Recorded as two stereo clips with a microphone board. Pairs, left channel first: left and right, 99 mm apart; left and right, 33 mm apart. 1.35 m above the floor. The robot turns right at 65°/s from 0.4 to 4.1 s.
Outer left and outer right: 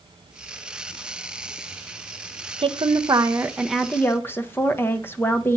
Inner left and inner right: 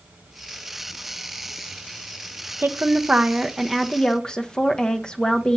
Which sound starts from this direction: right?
A woman speaking, at 2.6 s.